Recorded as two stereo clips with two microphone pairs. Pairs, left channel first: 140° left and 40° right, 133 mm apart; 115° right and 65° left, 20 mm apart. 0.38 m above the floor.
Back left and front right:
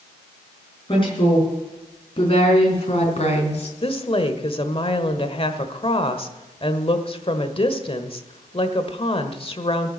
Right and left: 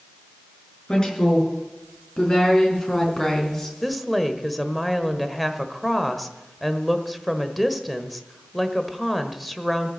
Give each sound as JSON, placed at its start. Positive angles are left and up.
{"t": 0.9, "sound": "a woman speaking", "azimuth_deg": -170, "distance_m": 5.5}
{"t": 3.8, "sound": "a woman speaking", "azimuth_deg": 155, "distance_m": 1.3}